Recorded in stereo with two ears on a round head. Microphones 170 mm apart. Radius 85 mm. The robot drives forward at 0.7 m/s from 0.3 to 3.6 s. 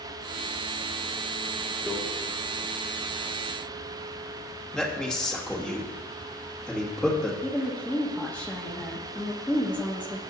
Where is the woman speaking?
10° left (ahead or behind), 1.2 m.